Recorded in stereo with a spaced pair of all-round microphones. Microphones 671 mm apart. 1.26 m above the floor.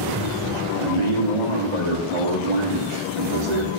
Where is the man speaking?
85° right, 2.5 m.